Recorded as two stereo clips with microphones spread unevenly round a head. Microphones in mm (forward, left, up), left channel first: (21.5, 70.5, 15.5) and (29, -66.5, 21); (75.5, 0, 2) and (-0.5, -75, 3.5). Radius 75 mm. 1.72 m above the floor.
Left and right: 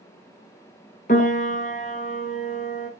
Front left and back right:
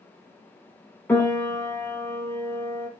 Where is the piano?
115° left, 0.9 m.